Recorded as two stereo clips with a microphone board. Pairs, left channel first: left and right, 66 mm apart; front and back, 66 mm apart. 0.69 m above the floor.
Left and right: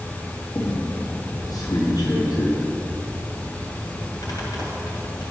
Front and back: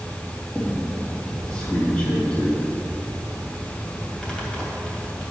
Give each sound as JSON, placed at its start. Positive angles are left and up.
{"t": 0.6, "sound": "a squeak", "azimuth_deg": 75, "distance_m": 2.5}